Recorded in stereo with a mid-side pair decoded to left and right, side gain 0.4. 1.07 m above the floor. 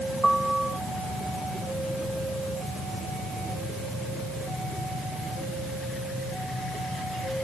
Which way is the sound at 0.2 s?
15° right.